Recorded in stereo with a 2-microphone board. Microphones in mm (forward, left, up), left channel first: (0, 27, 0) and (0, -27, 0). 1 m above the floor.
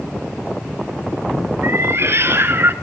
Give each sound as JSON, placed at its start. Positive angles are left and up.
{"t": 1.6, "sound": "a cat meowing", "side_deg": -55, "distance_m": 1.8}